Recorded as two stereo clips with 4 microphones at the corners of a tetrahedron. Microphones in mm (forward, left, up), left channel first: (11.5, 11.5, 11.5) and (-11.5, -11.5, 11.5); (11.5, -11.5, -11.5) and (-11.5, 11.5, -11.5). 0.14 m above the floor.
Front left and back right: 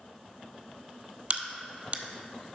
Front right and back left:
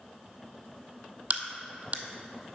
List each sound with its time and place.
1.3 s a crack: straight behind, 0.6 m